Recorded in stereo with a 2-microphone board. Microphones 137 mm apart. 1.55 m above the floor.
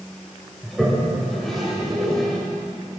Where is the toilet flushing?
Centre (ahead or behind), 2.5 m.